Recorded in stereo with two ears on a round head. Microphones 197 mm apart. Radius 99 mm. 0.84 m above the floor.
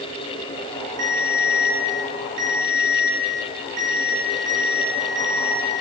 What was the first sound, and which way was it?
A ringtone, 85° right.